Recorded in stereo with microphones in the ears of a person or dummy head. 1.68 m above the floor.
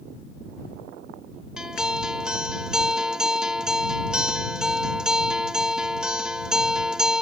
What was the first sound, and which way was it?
A guitar, 5° right (ahead or behind).